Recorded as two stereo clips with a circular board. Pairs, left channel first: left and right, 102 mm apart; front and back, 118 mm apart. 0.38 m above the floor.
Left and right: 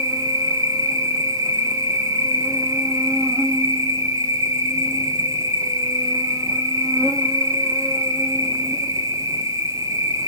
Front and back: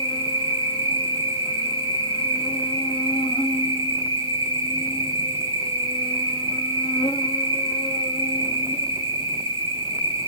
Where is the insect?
35° right, 0.8 m.